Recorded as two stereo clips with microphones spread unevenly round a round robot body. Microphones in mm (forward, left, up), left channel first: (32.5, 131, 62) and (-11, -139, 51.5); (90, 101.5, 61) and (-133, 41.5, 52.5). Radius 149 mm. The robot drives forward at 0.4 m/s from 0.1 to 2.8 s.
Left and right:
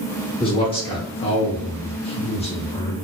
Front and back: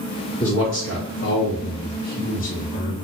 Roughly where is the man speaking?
Ahead.